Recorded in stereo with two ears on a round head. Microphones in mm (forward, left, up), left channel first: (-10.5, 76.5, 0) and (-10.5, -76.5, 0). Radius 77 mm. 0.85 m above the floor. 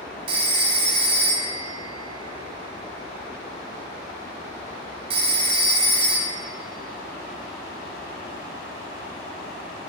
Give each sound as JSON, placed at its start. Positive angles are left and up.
{"t": 0.3, "sound": "a phone ringing", "side_deg": -35, "distance_m": 1.1}